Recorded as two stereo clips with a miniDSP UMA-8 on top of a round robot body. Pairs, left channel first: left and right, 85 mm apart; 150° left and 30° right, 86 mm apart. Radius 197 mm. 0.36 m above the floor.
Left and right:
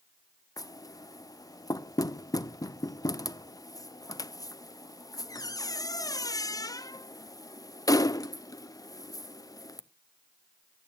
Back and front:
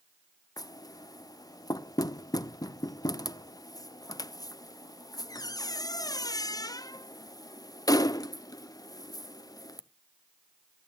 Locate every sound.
0.6 s knocking: 125° left, 0.9 m